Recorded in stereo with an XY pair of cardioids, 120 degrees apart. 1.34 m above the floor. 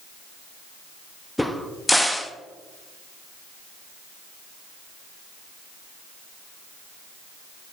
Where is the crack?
5° left, 0.6 m.